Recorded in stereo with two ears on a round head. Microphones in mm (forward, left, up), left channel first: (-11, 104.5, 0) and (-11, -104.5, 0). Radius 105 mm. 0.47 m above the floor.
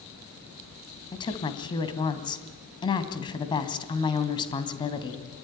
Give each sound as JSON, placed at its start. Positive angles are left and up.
{"t": 1.1, "sound": "a woman speaking", "side_deg": 20, "distance_m": 3.0}